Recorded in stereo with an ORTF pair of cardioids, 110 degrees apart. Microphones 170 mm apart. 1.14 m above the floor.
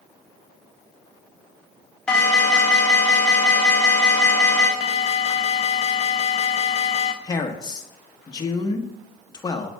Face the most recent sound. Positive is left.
turn(degrees=25)